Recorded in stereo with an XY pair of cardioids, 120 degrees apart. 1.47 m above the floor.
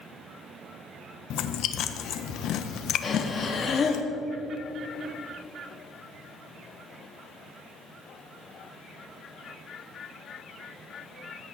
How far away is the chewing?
About 1.3 m.